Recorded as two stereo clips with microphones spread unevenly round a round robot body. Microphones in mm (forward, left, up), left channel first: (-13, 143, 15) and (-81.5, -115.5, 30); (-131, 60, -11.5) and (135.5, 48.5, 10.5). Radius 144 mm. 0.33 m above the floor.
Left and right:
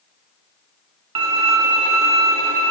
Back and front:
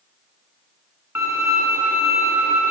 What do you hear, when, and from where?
1.1 s a violin: 85° right, 0.8 m